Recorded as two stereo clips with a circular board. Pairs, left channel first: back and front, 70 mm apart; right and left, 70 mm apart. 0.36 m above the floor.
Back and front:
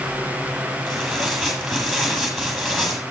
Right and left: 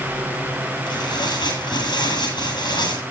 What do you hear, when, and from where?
0.9 s tearing paper: 90° right, 9 m